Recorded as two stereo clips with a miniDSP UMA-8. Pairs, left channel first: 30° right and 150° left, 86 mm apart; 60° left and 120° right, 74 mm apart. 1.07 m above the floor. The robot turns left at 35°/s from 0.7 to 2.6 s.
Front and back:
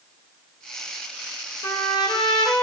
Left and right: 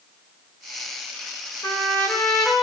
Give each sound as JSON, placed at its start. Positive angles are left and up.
{"t": 1.6, "sound": "a trumpet", "azimuth_deg": 10, "distance_m": 2.0}